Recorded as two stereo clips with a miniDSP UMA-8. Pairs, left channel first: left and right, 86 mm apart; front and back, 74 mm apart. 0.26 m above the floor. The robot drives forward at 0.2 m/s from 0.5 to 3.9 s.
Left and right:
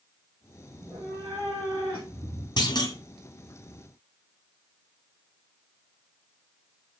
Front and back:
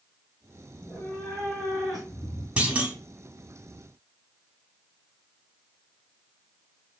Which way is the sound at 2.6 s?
105° left.